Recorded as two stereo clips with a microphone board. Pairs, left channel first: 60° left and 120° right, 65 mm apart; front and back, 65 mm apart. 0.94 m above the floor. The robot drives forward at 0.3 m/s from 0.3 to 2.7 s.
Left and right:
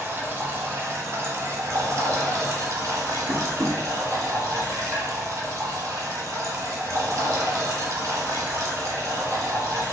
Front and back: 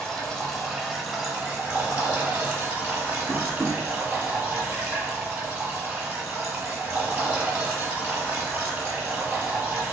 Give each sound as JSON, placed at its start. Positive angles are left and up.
{"t": 0.0, "sound": "running water", "azimuth_deg": -85, "distance_m": 0.9}
{"t": 3.3, "sound": "tapping", "azimuth_deg": -125, "distance_m": 0.9}